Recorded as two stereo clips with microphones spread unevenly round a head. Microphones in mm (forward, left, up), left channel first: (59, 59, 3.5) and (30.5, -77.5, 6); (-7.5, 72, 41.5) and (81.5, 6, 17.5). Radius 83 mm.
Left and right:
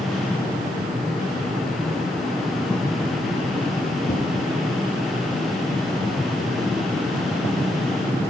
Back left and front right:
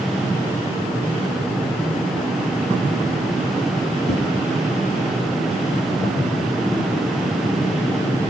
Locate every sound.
4.1 s a whoosh: 125° left, 4.5 m